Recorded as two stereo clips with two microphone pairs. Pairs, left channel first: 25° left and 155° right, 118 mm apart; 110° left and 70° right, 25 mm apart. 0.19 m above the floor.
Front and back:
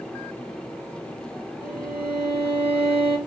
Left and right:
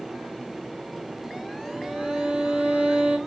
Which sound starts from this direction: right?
A violin, at 1.6 s.